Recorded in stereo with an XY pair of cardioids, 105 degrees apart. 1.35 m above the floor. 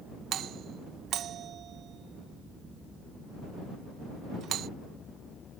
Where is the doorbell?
70° right.